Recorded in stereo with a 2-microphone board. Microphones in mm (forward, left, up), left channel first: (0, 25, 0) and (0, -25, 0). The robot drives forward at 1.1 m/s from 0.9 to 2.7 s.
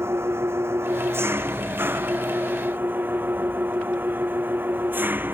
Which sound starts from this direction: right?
An engine running, at 0.0 s.